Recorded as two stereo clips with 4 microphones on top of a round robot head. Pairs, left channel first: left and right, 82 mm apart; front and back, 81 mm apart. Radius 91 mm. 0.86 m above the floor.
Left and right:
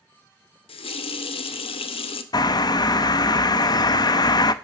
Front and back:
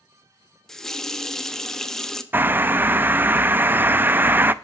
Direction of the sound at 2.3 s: 120° left.